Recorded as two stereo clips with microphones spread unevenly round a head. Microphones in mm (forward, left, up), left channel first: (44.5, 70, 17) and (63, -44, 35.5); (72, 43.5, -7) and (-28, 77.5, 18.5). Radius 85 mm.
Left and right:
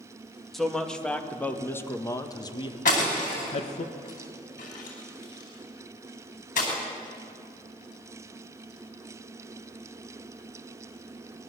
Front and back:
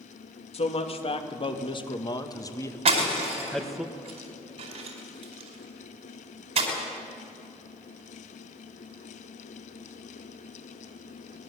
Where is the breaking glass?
145° left, 4.5 m.